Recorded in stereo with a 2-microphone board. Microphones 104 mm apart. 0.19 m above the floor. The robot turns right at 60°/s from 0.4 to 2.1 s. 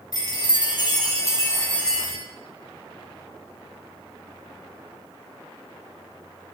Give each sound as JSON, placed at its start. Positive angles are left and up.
{"t": 0.1, "sound": "a chime", "azimuth_deg": 75, "distance_m": 2.0}